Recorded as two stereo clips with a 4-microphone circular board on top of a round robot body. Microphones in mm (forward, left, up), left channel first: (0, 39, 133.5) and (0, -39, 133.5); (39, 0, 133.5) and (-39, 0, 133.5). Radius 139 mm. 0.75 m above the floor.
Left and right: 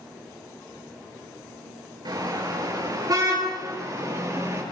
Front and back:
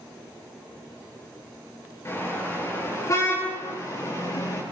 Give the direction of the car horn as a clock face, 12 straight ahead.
2 o'clock.